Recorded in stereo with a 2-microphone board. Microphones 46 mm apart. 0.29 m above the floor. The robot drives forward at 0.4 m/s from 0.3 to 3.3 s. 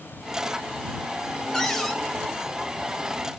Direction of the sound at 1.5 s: 5° left (ahead or behind).